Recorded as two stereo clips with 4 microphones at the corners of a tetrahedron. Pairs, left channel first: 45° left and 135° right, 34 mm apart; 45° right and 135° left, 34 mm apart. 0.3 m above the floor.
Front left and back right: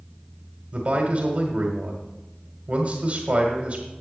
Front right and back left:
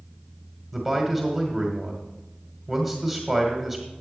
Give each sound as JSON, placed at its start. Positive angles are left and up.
{"t": 0.7, "sound": "a man speaking", "azimuth_deg": -135, "distance_m": 1.6}